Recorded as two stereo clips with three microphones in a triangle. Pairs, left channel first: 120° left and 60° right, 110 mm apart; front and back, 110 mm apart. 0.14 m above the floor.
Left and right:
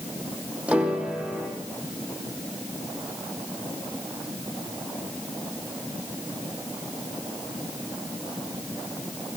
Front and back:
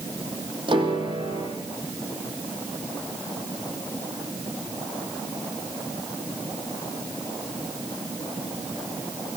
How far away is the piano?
About 5 m.